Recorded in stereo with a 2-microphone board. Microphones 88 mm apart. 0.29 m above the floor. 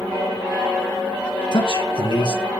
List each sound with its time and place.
1.5 s a man speaking: 60° left (ahead or behind), 3.5 m